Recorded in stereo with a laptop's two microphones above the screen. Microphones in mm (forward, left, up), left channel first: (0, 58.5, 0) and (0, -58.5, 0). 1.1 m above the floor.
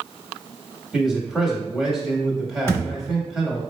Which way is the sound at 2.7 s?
20° left (ahead or behind).